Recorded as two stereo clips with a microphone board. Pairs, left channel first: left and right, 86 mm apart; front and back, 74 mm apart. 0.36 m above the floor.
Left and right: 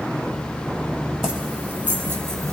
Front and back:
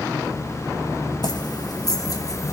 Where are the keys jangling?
5° right, 1.5 m; by 2.5 s 40° right, 1.1 m.